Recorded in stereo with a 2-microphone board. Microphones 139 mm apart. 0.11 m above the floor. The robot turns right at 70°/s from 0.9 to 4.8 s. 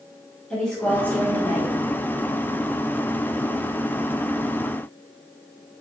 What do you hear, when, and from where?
0.5 s a woman speaking: 15° left, 1.3 m; by 1.7 s 70° left, 1.3 m